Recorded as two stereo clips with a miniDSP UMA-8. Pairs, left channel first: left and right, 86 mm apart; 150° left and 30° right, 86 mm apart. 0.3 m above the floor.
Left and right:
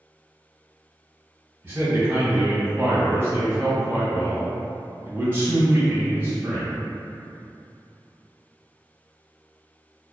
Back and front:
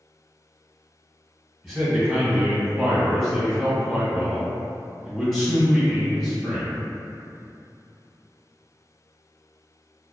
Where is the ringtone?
I don't hear a ringtone.